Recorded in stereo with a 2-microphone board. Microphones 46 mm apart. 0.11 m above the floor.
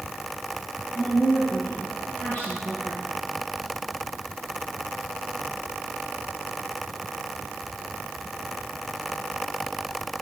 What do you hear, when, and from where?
0.9 s a woman speaking: 40° left (ahead or behind), 2.5 m